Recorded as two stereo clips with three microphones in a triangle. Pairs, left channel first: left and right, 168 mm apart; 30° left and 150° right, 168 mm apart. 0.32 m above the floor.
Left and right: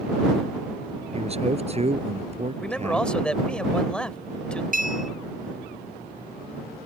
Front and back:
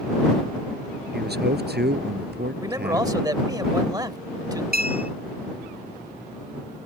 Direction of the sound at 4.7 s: 125° right.